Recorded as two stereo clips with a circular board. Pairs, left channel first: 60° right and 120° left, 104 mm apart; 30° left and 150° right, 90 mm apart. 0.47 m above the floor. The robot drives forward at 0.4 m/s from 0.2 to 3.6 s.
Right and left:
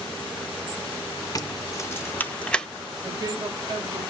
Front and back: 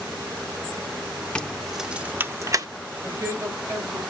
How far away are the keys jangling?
About 0.6 m.